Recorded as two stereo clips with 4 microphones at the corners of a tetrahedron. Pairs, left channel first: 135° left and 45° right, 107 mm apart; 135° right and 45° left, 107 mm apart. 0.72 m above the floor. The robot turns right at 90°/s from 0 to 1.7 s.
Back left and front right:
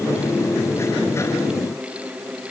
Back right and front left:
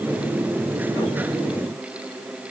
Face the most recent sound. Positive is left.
No sound to turn to.